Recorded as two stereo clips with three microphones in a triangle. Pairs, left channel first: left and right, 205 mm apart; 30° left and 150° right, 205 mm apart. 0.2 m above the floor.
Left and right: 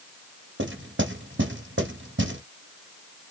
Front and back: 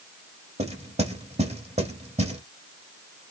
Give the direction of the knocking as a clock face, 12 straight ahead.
3 o'clock.